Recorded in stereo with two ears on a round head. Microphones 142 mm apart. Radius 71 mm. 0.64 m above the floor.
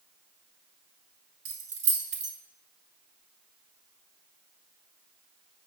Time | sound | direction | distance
1.4 | keys jangling | 80° right | 1.8 m